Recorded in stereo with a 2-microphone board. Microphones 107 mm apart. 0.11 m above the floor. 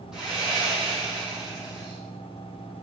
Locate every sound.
0.1 s sawing: 5° right (ahead or behind), 5 m